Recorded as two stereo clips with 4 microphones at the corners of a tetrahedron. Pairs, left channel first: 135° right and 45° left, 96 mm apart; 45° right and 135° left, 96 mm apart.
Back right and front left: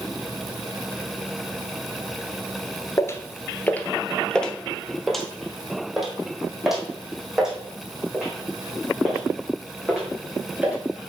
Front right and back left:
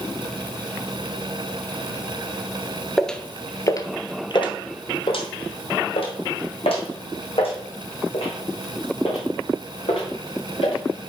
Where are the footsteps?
130° right, 0.6 m; by 10.8 s 35° right, 4 m.